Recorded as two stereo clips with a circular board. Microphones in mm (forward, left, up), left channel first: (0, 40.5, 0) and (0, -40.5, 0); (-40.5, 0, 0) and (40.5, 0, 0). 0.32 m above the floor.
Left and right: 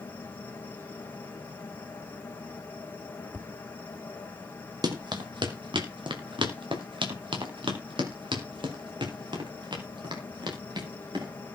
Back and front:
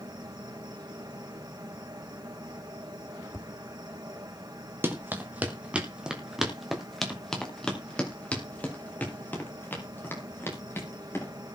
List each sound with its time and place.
0.0 s an insect: 25° left, 3.5 m
3.3 s tapping: 150° left, 0.6 m
4.8 s running footsteps: 60° right, 3 m; by 11.3 s 120° right, 6 m